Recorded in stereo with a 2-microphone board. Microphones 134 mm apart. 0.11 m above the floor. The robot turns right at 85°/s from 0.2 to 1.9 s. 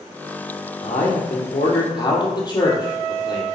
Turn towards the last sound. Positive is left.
turn(degrees=145)